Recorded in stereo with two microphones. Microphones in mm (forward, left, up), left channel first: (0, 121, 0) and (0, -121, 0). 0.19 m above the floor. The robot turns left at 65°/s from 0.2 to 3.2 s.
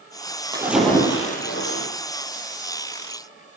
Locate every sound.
0.5 s a splash: 165° right, 6 m; by 1.9 s 110° left, 6 m